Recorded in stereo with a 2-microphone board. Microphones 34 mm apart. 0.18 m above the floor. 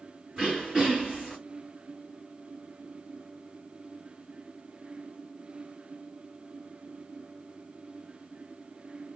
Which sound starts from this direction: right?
Throat clearing, at 0.4 s.